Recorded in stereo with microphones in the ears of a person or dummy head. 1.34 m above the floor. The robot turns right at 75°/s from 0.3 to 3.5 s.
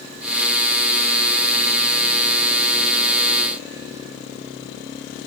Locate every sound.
Only background noise.